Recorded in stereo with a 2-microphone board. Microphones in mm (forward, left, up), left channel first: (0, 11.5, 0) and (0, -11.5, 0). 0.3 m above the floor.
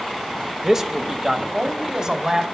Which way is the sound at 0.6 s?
20° right (ahead or behind).